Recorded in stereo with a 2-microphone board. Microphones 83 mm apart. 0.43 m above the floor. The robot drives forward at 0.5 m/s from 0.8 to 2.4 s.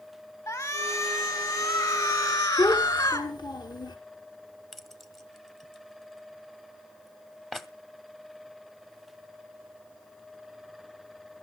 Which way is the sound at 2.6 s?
55° left (ahead or behind).